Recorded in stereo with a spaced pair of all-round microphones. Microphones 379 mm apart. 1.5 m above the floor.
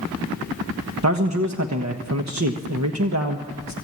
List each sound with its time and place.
1.0 s a man speaking: 45° right (ahead or behind), 1.3 m